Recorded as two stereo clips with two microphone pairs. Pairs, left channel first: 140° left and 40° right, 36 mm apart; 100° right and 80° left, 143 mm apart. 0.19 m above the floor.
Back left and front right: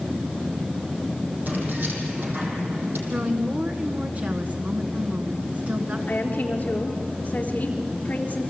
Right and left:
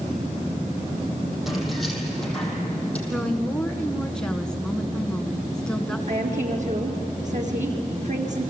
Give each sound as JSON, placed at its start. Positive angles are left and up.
{"t": 1.5, "sound": "keys jangling", "azimuth_deg": -10, "distance_m": 4.5}
{"t": 3.1, "sound": "a woman speaking", "azimuth_deg": -15, "distance_m": 2.0}
{"t": 6.1, "sound": "a woman speaking", "azimuth_deg": 100, "distance_m": 3.5}